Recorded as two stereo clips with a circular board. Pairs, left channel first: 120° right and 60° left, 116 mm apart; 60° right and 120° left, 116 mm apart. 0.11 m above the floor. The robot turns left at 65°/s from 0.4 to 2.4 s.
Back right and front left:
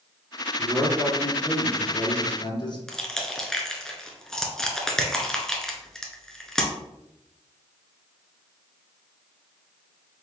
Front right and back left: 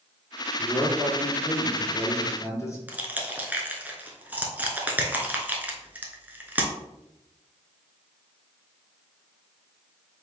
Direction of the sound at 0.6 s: 10° left.